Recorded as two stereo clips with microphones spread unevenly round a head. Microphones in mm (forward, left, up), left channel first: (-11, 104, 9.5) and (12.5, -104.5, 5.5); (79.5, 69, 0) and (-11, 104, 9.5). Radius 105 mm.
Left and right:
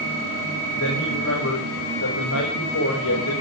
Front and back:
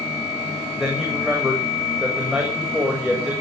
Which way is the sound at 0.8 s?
70° left.